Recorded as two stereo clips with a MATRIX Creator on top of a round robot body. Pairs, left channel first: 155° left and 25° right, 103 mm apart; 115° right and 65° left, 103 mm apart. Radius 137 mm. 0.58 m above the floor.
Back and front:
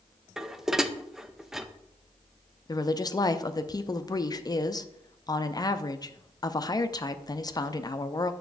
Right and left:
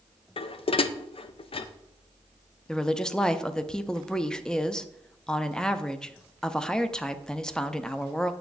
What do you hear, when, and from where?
0.4 s dishes clattering: 110° right, 0.6 m
2.7 s a woman speaking: 170° left, 0.7 m